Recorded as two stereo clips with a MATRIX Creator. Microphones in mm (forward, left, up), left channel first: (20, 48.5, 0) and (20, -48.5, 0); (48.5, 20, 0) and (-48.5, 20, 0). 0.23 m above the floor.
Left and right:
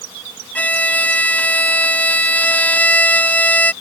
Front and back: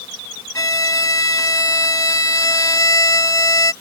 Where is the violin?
25° left.